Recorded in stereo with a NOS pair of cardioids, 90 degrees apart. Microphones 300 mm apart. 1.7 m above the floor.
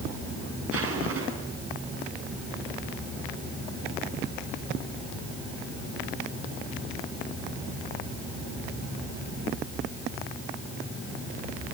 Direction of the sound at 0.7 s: 50° right.